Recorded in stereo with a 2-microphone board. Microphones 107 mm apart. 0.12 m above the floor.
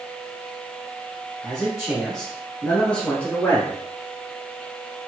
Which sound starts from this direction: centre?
A man speaking, at 1.4 s.